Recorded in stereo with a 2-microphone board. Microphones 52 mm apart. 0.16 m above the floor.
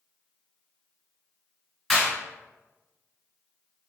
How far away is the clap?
About 1.3 m.